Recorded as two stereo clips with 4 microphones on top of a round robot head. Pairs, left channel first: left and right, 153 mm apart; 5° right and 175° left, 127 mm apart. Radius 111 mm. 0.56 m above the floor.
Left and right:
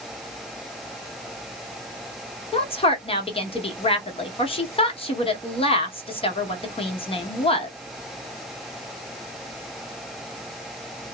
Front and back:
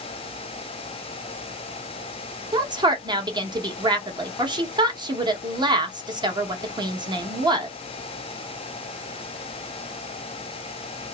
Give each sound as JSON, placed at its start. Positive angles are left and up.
{"t": 2.5, "sound": "a woman speaking", "azimuth_deg": 130, "distance_m": 1.1}